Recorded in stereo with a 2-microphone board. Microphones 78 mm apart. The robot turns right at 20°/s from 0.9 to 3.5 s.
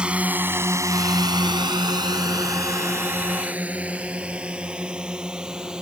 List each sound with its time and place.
0.0 s a drone: 10° right (ahead or behind)